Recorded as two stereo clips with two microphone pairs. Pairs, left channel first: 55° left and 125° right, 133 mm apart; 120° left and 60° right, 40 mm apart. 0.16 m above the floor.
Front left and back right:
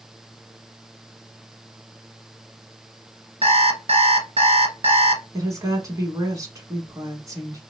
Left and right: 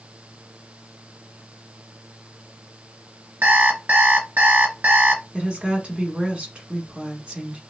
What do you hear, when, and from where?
3.4 s an alarm clock: 95° right, 1.1 m
5.3 s a woman speaking: 85° right, 1.1 m